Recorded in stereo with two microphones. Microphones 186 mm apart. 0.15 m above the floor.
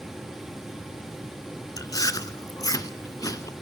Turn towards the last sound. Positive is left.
turn(degrees=20)  # may be behind; listen again after turning